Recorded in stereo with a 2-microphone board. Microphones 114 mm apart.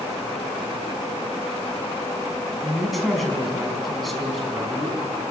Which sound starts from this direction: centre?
A woman speaking, at 2.6 s.